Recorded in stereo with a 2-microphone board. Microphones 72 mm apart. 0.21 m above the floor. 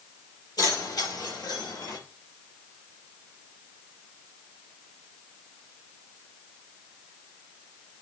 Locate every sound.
0.6 s keys jangling: 65° left (ahead or behind), 4.5 m; by 2.0 s 75° left (ahead or behind), 3.5 m